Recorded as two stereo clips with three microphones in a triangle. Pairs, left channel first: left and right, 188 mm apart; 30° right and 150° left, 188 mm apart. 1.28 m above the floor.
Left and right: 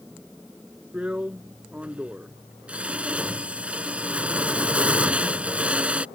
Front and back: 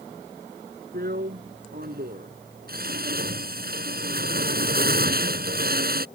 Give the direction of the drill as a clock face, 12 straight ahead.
6 o'clock.